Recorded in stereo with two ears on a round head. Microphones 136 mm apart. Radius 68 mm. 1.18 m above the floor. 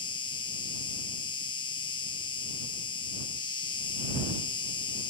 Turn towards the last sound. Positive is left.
turn(degrees=30)  # may be behind; listen again after turning